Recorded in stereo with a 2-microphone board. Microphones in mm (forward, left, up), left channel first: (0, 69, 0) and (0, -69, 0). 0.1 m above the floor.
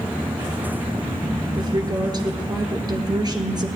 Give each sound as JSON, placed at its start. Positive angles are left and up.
{"t": 1.6, "sound": "a woman speaking", "side_deg": -30, "distance_m": 1.7}